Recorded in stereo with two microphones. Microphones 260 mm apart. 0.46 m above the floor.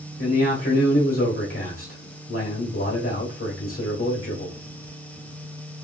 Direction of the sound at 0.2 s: 55° left (ahead or behind).